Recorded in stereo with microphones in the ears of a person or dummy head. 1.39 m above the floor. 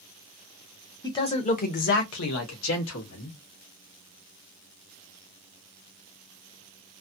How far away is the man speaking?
About 0.9 m.